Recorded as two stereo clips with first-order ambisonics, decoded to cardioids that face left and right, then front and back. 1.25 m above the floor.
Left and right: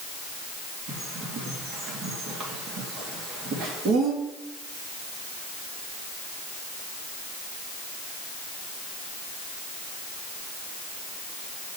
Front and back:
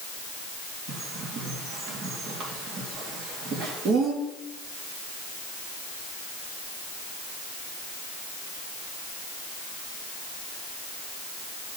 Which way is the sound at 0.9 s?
130° right.